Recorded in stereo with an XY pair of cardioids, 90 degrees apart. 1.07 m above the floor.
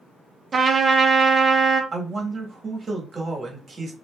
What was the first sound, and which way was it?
A trumpet, 40° right.